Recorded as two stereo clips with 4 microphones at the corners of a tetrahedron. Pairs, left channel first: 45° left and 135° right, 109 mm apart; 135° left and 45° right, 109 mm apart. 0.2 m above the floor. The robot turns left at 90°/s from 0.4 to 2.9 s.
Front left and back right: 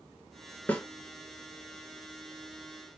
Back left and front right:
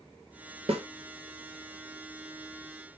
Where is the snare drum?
25° right, 1.2 m; by 0.9 s 40° right, 1.2 m.